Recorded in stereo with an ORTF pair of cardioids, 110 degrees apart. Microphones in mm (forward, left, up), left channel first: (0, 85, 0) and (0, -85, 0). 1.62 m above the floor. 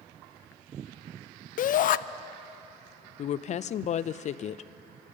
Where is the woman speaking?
45° left, 0.5 m.